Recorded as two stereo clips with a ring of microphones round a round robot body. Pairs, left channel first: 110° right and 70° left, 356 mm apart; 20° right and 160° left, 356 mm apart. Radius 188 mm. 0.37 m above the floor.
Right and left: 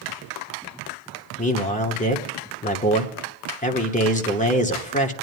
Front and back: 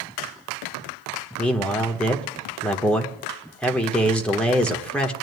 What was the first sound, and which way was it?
A man speaking, 105° right.